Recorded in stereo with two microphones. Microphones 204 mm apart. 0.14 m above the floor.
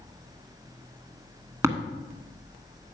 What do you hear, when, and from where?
1.6 s tapping: 15° right (ahead or behind), 1.2 m